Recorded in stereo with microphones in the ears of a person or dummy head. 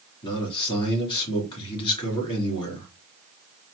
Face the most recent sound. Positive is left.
turn(degrees=25)  # may be behind; listen again after turning